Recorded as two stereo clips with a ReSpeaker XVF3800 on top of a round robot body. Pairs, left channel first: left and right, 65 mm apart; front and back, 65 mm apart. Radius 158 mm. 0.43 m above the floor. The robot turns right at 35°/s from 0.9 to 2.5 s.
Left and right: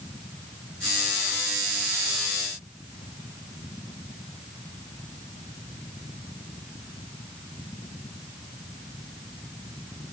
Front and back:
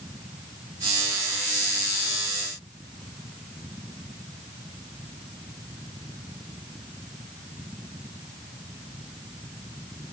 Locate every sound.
Only background noise.